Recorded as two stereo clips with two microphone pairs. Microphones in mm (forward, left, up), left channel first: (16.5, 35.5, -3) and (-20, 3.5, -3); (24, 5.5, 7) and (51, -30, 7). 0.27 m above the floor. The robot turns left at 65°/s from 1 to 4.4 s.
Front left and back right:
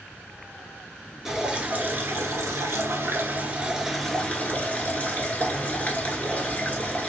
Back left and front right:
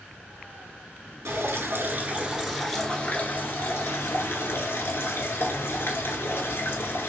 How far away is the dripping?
About 0.9 m.